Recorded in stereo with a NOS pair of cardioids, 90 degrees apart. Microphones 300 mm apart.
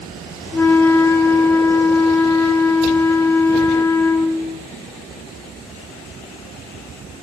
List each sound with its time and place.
0.5 s a flute: 10° left, 0.6 m